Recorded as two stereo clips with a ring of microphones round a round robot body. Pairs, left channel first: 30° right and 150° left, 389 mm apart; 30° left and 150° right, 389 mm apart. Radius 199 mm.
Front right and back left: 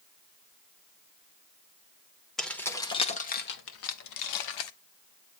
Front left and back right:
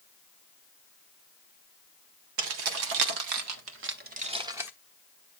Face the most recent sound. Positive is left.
turn(degrees=-65)